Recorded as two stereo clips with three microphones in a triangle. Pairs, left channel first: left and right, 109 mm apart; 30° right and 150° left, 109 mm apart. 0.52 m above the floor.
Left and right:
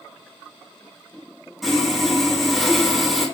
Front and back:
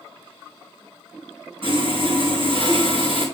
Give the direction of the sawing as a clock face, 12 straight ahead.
6 o'clock.